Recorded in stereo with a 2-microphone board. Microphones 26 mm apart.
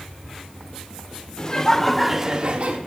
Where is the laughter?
35° left (ahead or behind), 1.3 m; by 2.8 s 60° right (ahead or behind), 1.1 m.